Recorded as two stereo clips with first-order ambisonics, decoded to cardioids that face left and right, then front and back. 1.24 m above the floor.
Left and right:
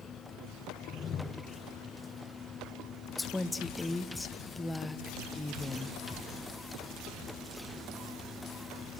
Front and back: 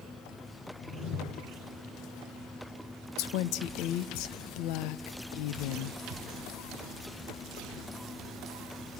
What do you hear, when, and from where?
0.8 s a whoosh: 30° left, 1.4 m
3.2 s a woman speaking: 5° left, 0.9 m